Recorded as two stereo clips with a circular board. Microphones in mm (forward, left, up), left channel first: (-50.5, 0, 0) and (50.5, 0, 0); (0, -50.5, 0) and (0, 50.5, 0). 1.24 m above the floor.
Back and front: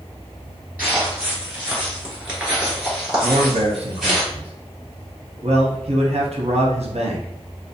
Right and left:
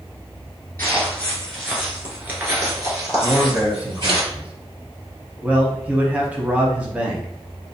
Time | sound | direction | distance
0.8 | footsteps | 55° right | 1.3 m
3.2 | a man speaking | 15° left | 0.7 m